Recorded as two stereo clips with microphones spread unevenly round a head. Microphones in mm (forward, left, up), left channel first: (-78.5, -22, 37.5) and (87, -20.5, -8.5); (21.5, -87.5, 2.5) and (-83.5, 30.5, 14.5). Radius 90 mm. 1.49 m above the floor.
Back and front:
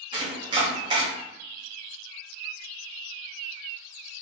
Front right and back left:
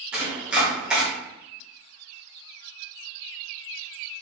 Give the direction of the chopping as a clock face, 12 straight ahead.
10 o'clock.